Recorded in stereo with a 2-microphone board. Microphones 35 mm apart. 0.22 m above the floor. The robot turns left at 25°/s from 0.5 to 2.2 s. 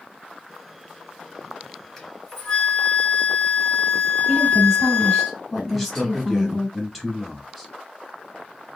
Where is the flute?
Centre (ahead or behind), 2 m; by 5.3 s 5° left (ahead or behind), 2 m.